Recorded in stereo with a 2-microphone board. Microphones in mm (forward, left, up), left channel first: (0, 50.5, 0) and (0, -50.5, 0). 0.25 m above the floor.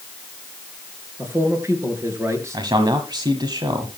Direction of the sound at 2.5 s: 45° right (ahead or behind).